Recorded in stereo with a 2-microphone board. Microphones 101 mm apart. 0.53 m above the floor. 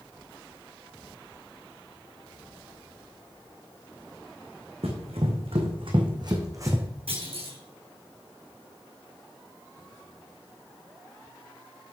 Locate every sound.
4.8 s running footsteps: 80° right, 3 m; by 6.8 s 25° right (ahead or behind), 2 m
7.1 s a clunk: 75° right (ahead or behind), 4.5 m